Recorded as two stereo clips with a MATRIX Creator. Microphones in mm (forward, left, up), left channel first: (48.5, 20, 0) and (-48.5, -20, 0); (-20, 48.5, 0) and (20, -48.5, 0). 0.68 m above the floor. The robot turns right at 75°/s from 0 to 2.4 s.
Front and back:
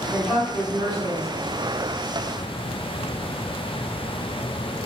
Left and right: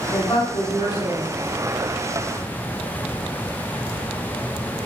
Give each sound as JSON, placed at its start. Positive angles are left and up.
{"t": 0.1, "sound": "a woman speaking", "azimuth_deg": 95, "distance_m": 1.4}